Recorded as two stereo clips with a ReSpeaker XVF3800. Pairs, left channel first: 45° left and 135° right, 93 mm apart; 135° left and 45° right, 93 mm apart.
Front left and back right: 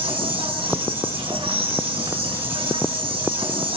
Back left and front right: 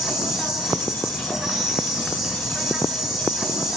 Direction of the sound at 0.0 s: 135° right.